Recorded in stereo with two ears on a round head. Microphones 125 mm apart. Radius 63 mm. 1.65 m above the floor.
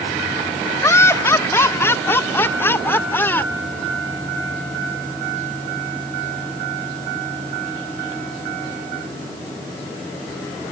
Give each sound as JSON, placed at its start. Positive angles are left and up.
{"t": 0.8, "sound": "laughter", "side_deg": 20}